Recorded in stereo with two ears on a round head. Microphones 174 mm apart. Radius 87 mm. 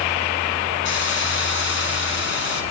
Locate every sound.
0.8 s a hiss: 65° left (ahead or behind), 4.5 m